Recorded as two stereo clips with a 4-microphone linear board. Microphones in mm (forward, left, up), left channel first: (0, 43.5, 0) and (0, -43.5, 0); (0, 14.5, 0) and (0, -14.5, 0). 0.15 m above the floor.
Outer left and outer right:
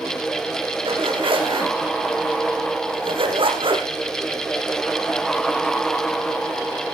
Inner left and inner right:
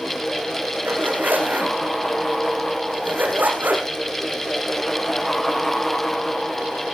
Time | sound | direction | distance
0.8 | a zipper | 80° right | 4 m